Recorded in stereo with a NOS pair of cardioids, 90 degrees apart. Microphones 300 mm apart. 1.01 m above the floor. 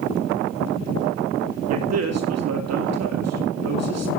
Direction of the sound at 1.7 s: 55° right.